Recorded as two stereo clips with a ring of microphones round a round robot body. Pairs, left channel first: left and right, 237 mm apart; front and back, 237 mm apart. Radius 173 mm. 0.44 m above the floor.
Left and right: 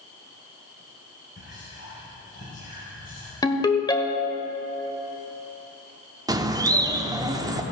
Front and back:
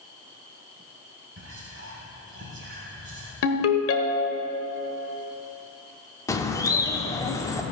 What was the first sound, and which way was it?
Whispering, 145° left.